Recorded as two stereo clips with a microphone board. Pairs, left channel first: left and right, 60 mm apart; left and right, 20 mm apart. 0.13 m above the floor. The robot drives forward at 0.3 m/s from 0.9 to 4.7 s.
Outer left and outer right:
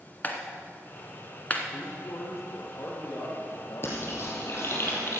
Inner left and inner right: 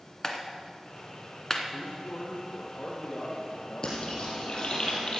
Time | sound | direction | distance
0.2 | a clap | 30° left (ahead or behind) | 1.3 m
1.7 | a man speaking | 70° left (ahead or behind) | 4 m
3.8 | frying | 45° left (ahead or behind) | 4 m